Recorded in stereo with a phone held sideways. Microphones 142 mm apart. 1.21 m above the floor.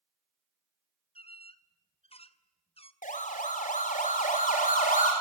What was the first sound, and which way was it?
A squeak, 40° left (ahead or behind).